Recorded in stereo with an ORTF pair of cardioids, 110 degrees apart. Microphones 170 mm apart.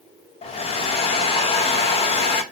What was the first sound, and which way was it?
A hair dryer, 40° left.